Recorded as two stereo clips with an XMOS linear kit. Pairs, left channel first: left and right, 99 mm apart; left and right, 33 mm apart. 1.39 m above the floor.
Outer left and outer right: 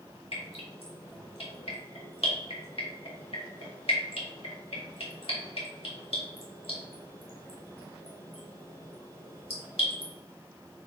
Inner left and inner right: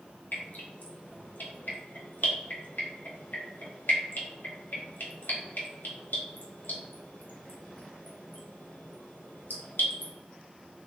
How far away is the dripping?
About 1.5 m.